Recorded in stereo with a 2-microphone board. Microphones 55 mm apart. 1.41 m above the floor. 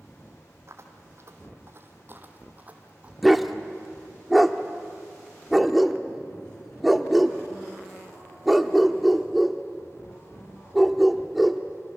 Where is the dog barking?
5° right (ahead or behind), 1.0 m.